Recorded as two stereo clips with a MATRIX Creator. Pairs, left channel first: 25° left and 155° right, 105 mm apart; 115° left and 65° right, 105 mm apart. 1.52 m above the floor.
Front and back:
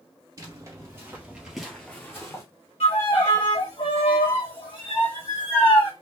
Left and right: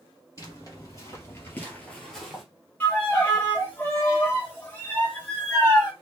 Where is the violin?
40° left, 2 m.